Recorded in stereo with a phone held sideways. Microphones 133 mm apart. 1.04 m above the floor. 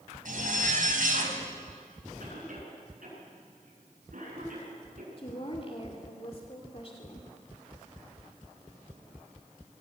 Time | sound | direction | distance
0.2 | a zipper | 70° right (ahead or behind) | 3.5 m
2.2 | a cough | 70° right (ahead or behind) | 9.5 m
5.2 | a woman speaking | 45° left (ahead or behind) | 2.5 m